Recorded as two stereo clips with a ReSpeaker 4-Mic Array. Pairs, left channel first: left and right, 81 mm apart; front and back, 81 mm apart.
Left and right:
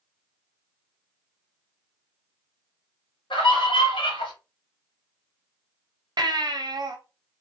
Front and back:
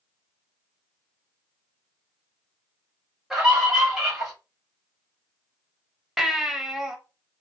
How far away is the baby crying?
About 0.6 m.